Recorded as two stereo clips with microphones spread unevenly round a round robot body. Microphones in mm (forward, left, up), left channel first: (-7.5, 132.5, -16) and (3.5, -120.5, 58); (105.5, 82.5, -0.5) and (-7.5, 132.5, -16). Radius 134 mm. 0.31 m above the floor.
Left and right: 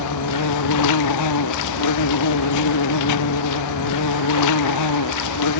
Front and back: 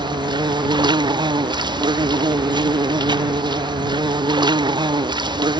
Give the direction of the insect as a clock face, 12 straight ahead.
9 o'clock.